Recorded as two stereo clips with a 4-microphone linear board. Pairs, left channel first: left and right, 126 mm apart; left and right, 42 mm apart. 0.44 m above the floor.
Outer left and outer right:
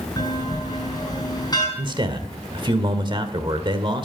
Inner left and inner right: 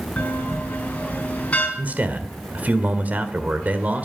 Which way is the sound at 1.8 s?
40° right (ahead or behind).